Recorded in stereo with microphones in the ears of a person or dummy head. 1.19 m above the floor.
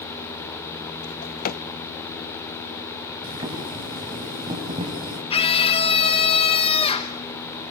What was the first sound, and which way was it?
A drawer, 45° left (ahead or behind).